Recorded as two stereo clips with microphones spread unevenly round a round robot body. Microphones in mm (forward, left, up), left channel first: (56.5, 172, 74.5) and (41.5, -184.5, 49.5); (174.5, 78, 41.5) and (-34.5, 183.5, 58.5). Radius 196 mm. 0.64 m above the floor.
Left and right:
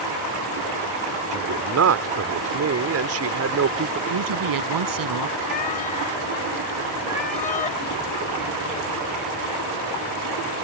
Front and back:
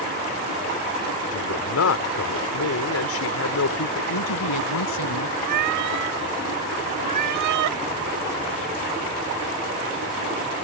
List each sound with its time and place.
1.3 s a man speaking: 45° right
4.1 s a woman speaking: 60° right
5.4 s a cat meowing: 160° left